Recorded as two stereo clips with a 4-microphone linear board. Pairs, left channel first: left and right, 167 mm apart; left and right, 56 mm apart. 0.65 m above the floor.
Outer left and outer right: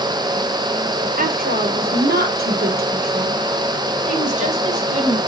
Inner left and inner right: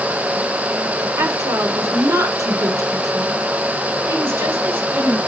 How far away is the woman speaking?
About 2 m.